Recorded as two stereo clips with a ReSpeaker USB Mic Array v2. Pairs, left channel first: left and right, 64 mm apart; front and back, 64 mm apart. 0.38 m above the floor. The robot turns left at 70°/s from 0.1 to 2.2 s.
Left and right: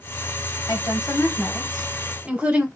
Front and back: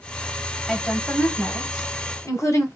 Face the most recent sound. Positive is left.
turn(degrees=-20)